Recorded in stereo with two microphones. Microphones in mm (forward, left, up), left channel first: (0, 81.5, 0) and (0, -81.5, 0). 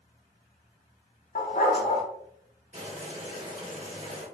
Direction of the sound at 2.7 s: 40° right (ahead or behind).